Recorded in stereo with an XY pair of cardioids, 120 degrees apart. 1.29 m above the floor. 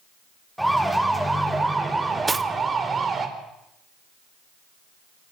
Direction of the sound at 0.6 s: 5° right.